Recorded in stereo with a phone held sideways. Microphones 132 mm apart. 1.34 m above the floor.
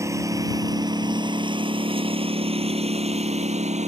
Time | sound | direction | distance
0.0 | a lawn mower | 25° right (ahead or behind) | ?